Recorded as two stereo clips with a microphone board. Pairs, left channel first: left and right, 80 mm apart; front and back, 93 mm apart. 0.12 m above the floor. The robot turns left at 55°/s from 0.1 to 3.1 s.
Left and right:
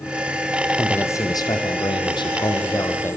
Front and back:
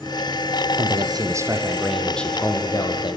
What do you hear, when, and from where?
0.8 s a man speaking: 160° left, 4.5 m; by 3.2 s 30° left, 4.5 m